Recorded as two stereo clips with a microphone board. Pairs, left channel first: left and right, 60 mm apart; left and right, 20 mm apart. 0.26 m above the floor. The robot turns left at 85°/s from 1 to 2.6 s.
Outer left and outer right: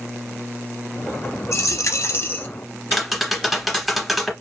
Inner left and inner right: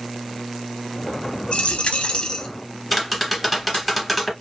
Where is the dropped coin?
110° left, 0.5 m; by 2.5 s 30° left, 0.5 m.